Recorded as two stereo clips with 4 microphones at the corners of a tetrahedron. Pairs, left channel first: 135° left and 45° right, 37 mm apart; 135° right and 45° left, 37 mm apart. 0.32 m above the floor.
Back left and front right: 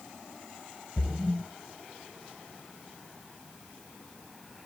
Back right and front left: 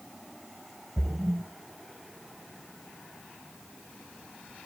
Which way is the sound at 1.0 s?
25° left.